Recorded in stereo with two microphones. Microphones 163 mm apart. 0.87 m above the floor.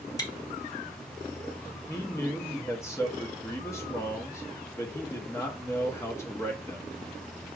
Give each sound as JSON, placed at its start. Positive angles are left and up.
{"t": 0.2, "sound": "chewing", "side_deg": 25, "distance_m": 0.8}
{"t": 1.9, "sound": "a man speaking", "side_deg": 15, "distance_m": 0.9}